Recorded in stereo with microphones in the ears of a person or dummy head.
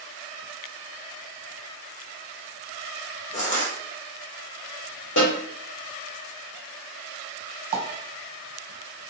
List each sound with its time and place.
3.3 s crushing: 35° left (ahead or behind), 0.8 m
5.2 s a snare drum: 75° left (ahead or behind), 1.5 m
7.7 s a pop: 35° right (ahead or behind), 1.0 m